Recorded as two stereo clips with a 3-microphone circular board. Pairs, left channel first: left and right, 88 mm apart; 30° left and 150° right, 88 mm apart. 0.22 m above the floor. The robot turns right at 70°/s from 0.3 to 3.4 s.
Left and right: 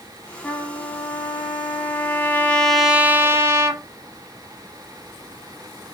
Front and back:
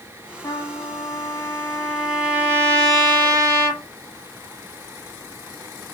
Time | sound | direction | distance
0.4 | a trumpet | 20° left | 0.8 m